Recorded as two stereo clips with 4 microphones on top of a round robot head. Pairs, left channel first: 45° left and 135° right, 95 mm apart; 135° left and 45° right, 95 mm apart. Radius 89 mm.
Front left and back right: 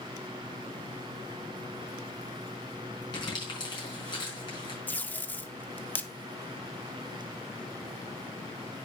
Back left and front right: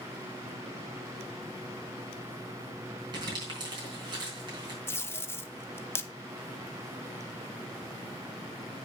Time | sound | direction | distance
3.1 | crumpling | straight ahead | 5 m
4.9 | tape being pulled | 100° left | 0.9 m